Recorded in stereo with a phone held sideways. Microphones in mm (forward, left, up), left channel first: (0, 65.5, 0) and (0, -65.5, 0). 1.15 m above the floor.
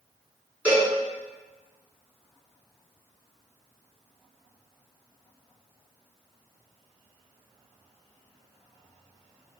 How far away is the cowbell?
About 3.5 m.